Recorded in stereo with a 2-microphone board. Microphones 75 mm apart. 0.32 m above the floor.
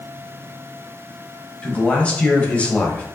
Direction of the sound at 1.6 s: 15° left (ahead or behind).